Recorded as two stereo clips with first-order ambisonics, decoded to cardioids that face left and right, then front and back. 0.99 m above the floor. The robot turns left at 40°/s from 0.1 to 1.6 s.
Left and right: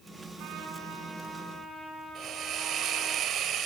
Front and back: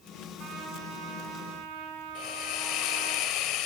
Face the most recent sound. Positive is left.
turn(degrees=-35)